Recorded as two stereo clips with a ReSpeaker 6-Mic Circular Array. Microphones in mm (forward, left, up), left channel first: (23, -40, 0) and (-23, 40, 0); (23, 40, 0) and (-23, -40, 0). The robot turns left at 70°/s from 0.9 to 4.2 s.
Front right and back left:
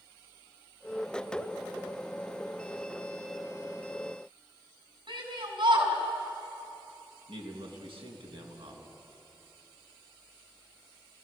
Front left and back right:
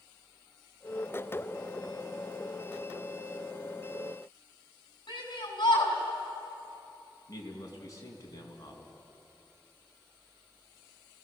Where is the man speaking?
110° left, 4.5 m.